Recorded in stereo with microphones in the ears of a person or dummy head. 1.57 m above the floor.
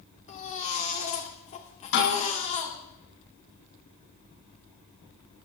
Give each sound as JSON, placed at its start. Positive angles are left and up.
{"t": 0.3, "sound": "a baby crying", "side_deg": 40, "distance_m": 2.5}
{"t": 1.9, "sound": "a snare drum", "side_deg": 80, "distance_m": 8.5}